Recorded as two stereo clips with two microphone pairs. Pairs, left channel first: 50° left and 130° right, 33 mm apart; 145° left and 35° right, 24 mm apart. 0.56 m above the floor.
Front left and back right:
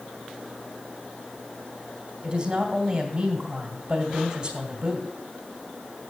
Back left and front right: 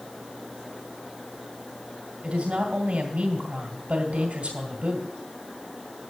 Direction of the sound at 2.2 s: 70° right.